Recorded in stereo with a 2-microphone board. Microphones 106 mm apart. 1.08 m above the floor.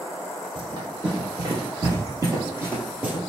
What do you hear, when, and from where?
0.6 s running footsteps: 50° right (ahead or behind), 1.7 m; by 3.2 s 10° right (ahead or behind), 1.2 m